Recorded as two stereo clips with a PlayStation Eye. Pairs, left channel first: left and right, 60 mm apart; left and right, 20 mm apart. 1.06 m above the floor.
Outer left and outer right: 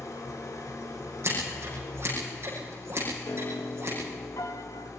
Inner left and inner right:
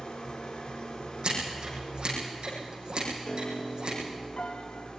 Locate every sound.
0.0 s an engine running: 75° left (ahead or behind), 3.5 m
1.2 s scissors: 50° right (ahead or behind), 9 m
3.3 s a piano: 70° left (ahead or behind), 1.5 m